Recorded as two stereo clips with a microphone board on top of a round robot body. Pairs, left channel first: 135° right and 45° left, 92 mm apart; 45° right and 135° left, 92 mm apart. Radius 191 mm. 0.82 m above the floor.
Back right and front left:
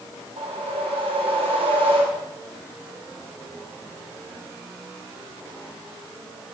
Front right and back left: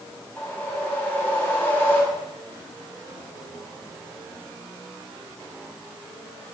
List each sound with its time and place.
0.4 s a whoosh: 30° left, 4.5 m